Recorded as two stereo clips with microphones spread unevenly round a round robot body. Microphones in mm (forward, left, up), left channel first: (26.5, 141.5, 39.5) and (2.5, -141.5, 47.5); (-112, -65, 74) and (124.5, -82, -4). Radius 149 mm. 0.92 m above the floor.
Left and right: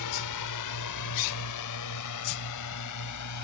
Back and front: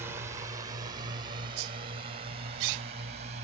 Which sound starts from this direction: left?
A drone, at 0.0 s.